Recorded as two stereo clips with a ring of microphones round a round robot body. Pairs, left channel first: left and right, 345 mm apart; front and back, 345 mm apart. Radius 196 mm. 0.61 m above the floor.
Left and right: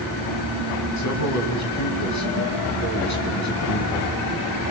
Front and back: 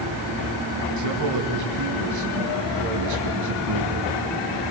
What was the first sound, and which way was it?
A man speaking, 135° left.